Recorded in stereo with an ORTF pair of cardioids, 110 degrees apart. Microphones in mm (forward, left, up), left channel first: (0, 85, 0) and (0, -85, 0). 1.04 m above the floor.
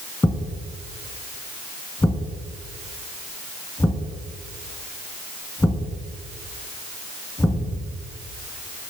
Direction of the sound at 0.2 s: 10° left.